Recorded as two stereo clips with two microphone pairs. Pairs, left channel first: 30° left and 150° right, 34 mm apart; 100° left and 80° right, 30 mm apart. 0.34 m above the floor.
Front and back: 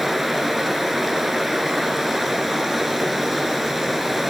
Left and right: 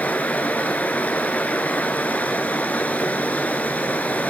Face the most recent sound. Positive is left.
turn(degrees=120)